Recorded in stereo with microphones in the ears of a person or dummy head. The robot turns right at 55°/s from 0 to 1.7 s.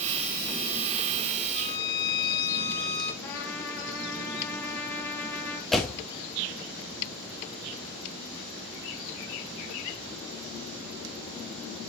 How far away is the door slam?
About 1.6 m.